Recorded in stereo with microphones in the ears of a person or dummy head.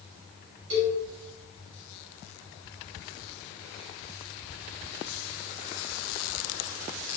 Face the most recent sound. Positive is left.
turn(degrees=-60)  # may be behind; listen again after turning